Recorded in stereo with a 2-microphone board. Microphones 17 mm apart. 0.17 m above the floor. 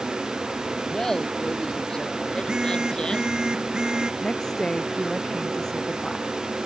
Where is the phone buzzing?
50° right (ahead or behind).